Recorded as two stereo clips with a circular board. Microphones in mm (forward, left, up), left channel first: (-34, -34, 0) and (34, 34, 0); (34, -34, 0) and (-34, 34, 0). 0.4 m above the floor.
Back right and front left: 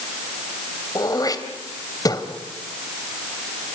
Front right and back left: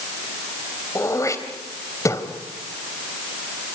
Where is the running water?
I don't hear running water.